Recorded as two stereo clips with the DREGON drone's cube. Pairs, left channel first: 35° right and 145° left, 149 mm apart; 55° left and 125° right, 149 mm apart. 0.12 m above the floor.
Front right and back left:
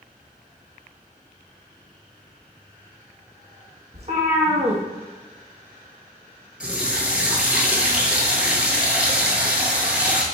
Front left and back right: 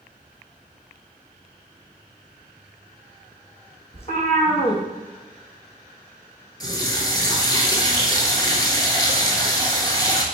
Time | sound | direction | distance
3.9 | a cat meowing | 105° left | 1.3 m
6.6 | a running tap | 75° left | 0.8 m